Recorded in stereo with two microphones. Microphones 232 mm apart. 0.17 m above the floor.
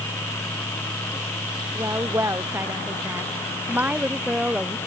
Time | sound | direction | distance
1.8 | a woman speaking | 15° right (ahead or behind) | ?